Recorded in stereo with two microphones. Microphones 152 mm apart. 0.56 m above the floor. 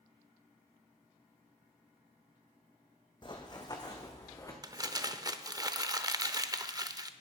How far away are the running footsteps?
About 1.2 m.